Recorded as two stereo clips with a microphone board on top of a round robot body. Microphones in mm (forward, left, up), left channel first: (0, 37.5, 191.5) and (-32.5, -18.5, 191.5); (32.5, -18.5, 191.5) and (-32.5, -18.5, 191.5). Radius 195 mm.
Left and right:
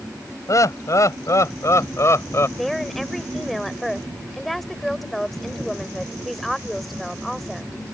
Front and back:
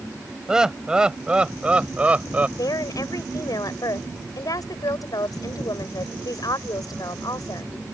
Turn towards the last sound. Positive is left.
turn(degrees=-25)